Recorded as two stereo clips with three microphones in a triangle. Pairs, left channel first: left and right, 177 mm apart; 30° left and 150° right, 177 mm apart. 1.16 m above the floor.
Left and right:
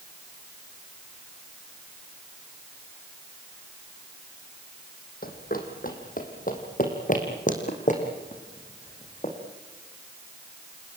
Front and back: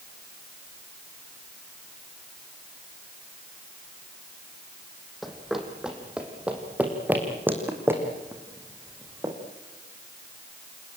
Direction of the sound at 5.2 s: 120° left.